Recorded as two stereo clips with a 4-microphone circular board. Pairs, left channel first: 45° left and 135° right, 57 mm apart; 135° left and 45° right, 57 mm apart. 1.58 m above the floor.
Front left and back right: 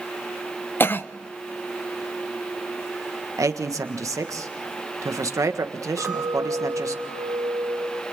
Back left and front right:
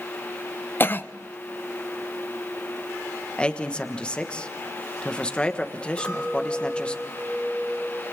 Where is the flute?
I don't hear a flute.